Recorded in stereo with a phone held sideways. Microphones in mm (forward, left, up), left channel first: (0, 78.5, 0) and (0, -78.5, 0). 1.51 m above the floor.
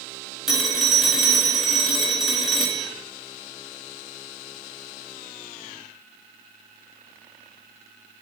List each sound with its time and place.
0.5 s a phone ringing: centre (ahead or behind), 1.7 m